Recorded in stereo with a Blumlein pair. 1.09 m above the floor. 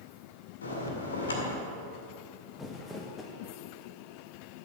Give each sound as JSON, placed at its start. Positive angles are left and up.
{"t": 0.6, "sound": "a bell", "azimuth_deg": 70, "distance_m": 2.0}
{"t": 2.6, "sound": "crumpling", "azimuth_deg": 10, "distance_m": 1.3}